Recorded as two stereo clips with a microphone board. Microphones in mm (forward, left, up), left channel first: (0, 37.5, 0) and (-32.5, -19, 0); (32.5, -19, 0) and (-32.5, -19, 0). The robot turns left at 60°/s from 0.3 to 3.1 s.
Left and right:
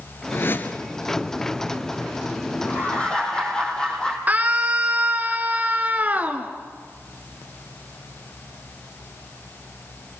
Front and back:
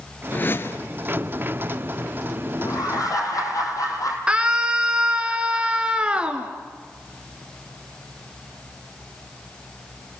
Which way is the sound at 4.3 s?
130° right.